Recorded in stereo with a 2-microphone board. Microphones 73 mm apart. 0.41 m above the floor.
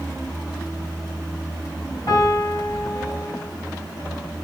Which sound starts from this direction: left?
A piano, at 2.1 s.